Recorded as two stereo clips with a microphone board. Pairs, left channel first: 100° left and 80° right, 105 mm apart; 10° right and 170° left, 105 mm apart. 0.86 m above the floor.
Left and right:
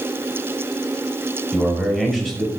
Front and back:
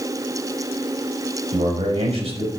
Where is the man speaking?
175° right, 5 m.